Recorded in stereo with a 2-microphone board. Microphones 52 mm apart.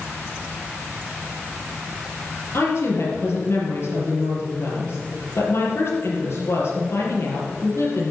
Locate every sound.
2.5 s a woman speaking: 55° left (ahead or behind), 4 m